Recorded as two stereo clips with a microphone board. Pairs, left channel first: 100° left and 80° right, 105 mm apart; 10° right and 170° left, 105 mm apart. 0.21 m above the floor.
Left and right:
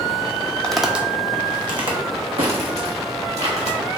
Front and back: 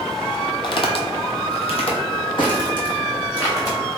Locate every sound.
0.6 s footsteps: 20° left, 0.6 m; by 3.8 s 65° right, 1.6 m